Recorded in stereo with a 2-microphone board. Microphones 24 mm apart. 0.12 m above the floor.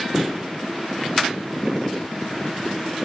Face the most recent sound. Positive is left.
turn(degrees=-20)  # may be behind; listen again after turning